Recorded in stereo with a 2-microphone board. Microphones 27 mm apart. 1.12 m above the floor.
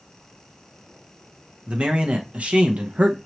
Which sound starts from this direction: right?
A man speaking, at 1.7 s.